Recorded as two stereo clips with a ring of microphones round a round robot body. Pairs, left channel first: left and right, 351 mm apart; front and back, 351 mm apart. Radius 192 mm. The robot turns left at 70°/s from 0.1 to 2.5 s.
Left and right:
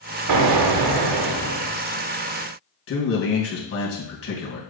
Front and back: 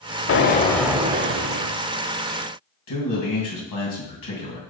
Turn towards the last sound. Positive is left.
turn(degrees=40)